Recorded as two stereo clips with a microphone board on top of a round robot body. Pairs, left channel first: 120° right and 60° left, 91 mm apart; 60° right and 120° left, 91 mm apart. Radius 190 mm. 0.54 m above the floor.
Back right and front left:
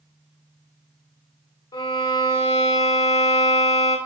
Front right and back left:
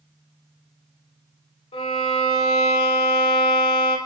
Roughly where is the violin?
Right.